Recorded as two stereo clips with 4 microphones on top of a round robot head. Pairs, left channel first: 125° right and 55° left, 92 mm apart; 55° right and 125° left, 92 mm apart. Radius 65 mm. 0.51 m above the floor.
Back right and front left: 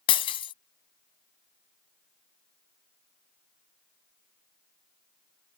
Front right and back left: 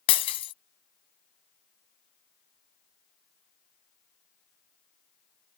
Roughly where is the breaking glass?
Right.